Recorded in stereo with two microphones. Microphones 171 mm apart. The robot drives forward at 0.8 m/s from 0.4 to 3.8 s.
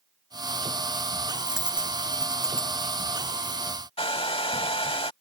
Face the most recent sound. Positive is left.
turn(degrees=35)  # may be behind; listen again after turning